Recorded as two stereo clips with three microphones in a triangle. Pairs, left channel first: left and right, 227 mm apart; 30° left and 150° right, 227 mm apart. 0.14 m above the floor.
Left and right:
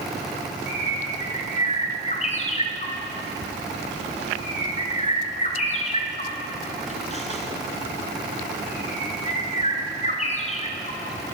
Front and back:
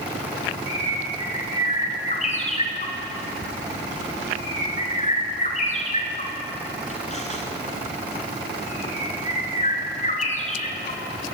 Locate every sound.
0.7 s a bird: 60° left, 1.3 m